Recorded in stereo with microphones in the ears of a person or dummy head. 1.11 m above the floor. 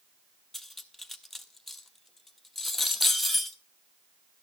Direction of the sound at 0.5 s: Centre (ahead or behind).